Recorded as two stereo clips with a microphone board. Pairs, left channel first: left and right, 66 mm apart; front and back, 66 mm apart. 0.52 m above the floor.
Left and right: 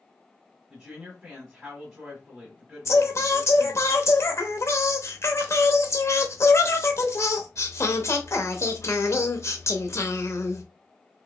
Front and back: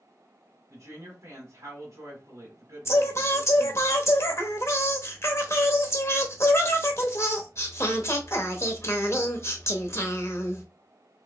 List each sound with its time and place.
0.7 s a woman speaking: 170° right, 1.4 m
2.9 s singing: 45° left, 0.8 m